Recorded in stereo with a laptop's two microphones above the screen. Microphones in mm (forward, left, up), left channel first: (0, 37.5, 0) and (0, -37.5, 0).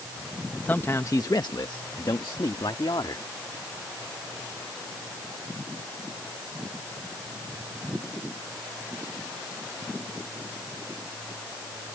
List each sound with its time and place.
0.7 s a man speaking: 25° left (ahead or behind); by 3.2 s 75° left (ahead or behind)